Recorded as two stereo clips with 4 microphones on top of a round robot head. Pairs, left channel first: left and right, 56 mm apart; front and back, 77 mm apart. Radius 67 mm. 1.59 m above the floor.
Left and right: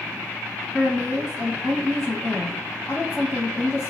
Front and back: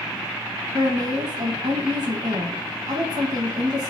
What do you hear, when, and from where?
0.7 s a woman speaking: 145° left, 1.2 m